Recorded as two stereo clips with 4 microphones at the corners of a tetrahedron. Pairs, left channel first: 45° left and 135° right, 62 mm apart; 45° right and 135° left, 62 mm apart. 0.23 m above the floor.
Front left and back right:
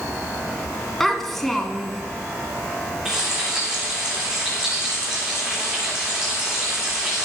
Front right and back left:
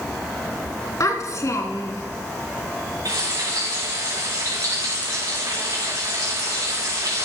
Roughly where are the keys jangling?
No keys jangling in this recording.